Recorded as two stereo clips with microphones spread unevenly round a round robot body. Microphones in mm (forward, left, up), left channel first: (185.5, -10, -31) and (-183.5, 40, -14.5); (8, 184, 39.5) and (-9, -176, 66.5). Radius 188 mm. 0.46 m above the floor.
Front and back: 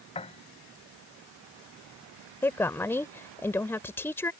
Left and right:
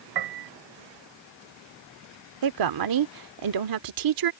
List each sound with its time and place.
0.1 s a piano: 80° right
2.4 s a woman speaking: 90° right